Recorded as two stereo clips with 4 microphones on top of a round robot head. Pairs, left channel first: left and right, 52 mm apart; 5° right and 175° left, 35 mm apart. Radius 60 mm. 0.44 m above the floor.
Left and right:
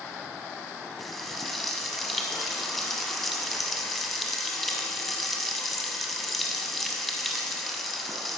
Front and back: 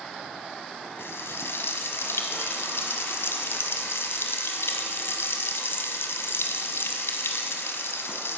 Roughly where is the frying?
Ahead.